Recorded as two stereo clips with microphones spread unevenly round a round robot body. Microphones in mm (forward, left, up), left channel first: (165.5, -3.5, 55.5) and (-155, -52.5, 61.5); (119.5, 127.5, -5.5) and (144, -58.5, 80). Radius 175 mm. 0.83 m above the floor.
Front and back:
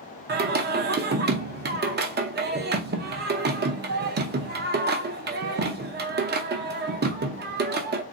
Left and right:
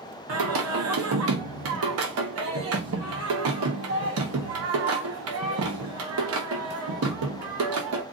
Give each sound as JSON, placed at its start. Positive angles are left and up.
{"t": 0.3, "sound": "singing", "azimuth_deg": -110, "distance_m": 0.6}